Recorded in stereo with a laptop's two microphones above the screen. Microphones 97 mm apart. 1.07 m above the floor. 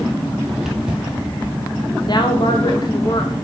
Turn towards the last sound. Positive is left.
turn(degrees=50)  # may be behind; listen again after turning